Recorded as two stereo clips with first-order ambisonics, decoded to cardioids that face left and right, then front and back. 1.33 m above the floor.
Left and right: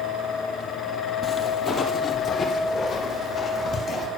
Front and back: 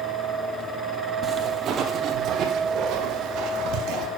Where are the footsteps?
150° left, 1.4 m; by 4.1 s 160° left, 2.5 m.